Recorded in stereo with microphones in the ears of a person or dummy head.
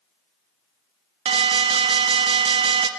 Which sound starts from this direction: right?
An alarm, at 1.2 s.